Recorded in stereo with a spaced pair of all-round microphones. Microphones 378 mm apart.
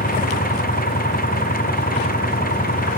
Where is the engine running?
20° left (ahead or behind).